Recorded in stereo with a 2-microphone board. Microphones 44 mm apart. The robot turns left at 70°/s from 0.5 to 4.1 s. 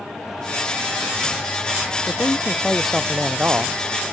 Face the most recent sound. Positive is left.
turn(degrees=-85)